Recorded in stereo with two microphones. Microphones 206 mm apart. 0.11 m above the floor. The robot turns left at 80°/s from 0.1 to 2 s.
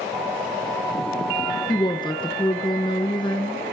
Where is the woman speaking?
20° left (ahead or behind), 1.2 m.